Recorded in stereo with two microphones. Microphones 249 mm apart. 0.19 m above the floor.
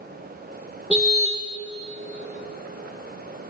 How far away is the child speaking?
No child speaking in this recording.